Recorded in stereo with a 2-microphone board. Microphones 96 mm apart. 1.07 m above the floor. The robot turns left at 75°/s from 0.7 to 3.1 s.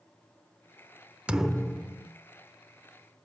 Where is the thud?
160° right, 0.9 m; by 2.1 s 140° left, 0.9 m.